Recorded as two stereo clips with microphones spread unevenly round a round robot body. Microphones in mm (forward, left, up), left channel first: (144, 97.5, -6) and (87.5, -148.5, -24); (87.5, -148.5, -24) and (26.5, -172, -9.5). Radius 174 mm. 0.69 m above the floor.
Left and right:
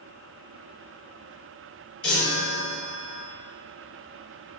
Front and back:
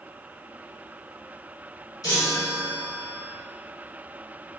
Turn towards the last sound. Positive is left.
turn(degrees=45)